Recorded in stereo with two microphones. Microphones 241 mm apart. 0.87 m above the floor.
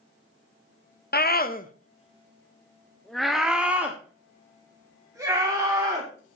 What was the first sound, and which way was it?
A scream, 40° left (ahead or behind).